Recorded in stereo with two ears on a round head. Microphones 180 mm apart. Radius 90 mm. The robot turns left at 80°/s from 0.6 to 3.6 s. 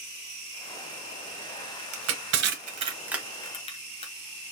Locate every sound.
1.9 s crushing: 75° right (ahead or behind), 1.2 m; by 4.1 s 30° left (ahead or behind), 1.2 m